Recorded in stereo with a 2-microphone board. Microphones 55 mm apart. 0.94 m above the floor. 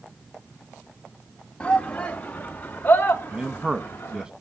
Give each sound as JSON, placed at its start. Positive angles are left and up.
{"t": 1.6, "sound": "a shout", "side_deg": 20, "distance_m": 1.9}
{"t": 3.3, "sound": "a man speaking", "side_deg": -15, "distance_m": 1.1}